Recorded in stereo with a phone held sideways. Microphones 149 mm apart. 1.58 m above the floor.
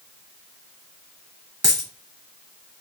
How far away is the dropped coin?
About 1.5 m.